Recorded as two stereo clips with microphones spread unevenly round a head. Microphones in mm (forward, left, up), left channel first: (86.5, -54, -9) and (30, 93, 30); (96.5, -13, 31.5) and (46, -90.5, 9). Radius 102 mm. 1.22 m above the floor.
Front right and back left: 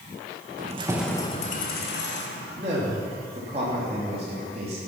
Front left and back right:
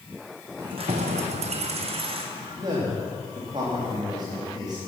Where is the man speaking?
175° left, 2.5 m.